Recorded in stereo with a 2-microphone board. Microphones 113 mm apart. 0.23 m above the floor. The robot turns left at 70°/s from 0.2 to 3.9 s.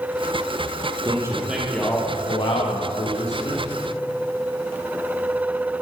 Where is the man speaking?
140° right, 7 m; by 3.6 s 40° left, 7 m.